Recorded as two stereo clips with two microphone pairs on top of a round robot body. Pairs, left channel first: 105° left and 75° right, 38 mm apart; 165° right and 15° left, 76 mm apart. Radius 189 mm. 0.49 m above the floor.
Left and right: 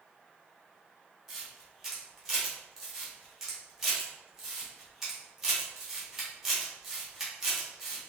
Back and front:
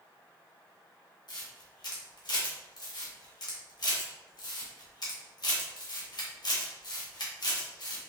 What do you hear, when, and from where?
1.3 s a camera shutter: 150° right, 1.8 m